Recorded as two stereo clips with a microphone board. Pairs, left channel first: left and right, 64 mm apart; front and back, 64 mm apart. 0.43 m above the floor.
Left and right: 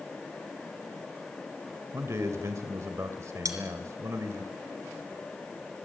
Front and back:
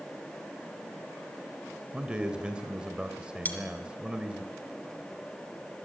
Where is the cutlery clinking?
60° right, 3.5 m.